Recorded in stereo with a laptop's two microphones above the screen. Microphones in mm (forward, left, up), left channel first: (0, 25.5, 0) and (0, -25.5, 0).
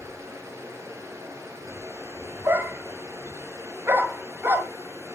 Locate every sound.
0.0 s running water: 75° right (ahead or behind), 3 m
2.5 s a dog barking: 55° right (ahead or behind), 1.5 m